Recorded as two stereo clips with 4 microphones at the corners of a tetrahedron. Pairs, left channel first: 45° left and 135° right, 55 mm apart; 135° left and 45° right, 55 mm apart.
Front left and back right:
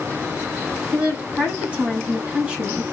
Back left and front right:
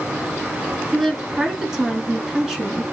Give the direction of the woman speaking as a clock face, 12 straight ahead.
4 o'clock.